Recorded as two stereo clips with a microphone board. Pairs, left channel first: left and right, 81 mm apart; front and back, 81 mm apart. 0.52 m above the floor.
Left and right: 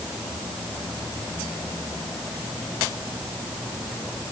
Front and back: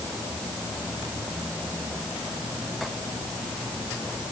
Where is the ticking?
No ticking in this recording.